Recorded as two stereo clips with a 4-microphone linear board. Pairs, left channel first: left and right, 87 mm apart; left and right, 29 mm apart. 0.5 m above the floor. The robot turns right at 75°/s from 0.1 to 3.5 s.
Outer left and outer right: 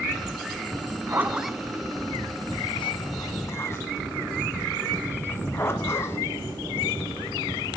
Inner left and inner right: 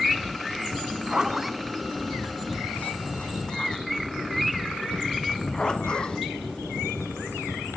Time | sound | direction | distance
0.8 | a zipper | 50° right (ahead or behind) | 1.2 m